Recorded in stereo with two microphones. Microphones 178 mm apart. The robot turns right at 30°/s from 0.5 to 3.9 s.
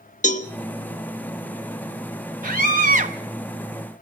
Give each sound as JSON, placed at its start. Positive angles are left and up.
{"t": 0.2, "sound": "a cowbell", "side_deg": 45, "distance_m": 1.2}
{"t": 2.4, "sound": "a scream", "side_deg": -50, "distance_m": 0.6}